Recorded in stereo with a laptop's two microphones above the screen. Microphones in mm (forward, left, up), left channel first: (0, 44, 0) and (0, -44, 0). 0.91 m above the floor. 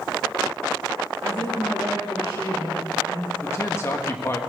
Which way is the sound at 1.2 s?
80° left.